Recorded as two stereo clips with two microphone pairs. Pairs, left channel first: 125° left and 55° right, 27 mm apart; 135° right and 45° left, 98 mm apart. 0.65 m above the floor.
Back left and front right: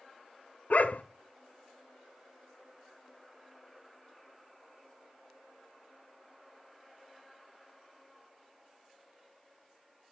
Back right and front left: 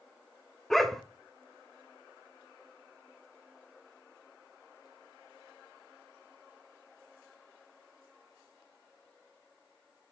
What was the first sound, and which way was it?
A dog barking, 140° left.